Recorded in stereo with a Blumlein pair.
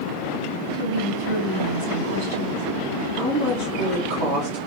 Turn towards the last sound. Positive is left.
turn(degrees=-60)